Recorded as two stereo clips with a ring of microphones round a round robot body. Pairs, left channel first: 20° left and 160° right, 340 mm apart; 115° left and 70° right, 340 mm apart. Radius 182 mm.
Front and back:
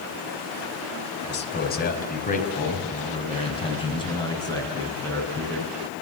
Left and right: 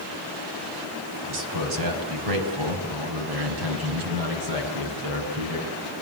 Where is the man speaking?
35° right, 4.5 m; by 5.7 s 60° right, 7.5 m.